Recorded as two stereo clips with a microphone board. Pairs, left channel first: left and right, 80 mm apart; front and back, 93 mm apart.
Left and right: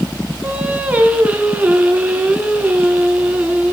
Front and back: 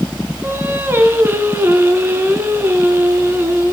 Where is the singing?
145° right, 1.4 m.